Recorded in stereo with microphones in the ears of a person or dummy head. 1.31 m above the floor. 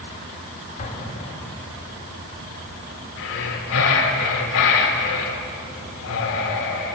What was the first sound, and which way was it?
An explosion, 40° left (ahead or behind).